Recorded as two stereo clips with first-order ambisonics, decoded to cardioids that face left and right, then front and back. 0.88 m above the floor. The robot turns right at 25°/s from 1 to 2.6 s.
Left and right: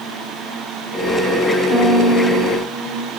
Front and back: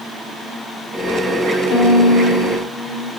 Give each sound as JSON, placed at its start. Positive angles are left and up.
{"t": 1.7, "sound": "a violin", "azimuth_deg": 25, "distance_m": 1.5}